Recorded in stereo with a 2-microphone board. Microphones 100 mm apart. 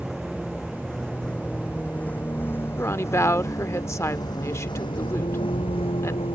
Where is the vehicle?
Centre (ahead or behind); by 6.4 s 70° left (ahead or behind).